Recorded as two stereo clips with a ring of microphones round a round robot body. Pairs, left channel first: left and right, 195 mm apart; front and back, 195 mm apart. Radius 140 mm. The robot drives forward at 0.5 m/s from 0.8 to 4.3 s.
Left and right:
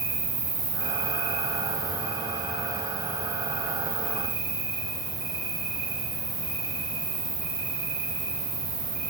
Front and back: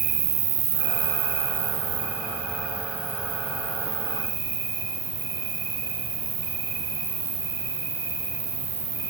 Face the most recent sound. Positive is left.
turn(degrees=180)